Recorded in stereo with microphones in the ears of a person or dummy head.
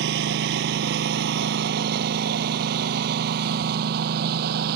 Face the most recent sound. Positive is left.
turn(degrees=-50)  # may be behind; listen again after turning